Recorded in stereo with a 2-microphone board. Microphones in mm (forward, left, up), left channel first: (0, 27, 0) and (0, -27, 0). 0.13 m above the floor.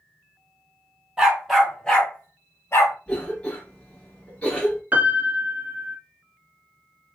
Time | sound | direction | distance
1.2 | a dog barking | 10° right (ahead or behind) | 1.3 m
3.1 | a cough | 20° left (ahead or behind) | 1.1 m
4.9 | a piano | 35° right (ahead or behind) | 0.5 m